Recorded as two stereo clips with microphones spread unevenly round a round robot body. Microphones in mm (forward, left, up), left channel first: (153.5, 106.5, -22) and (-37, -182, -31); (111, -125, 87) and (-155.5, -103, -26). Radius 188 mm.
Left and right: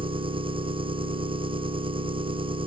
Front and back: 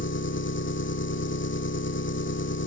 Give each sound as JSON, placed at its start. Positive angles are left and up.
{"t": 0.0, "sound": "an engine running", "azimuth_deg": -50}